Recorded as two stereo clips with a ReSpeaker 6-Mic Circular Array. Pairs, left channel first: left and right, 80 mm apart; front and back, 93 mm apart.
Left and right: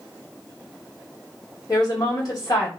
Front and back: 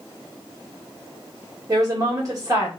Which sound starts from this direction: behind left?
A woman speaking, at 1.7 s.